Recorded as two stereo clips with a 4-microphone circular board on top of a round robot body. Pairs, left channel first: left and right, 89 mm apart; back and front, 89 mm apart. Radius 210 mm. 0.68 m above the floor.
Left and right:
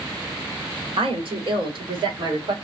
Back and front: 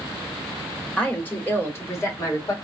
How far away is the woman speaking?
About 2 m.